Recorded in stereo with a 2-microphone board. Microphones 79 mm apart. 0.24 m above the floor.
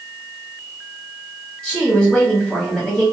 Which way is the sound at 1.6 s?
10° left (ahead or behind).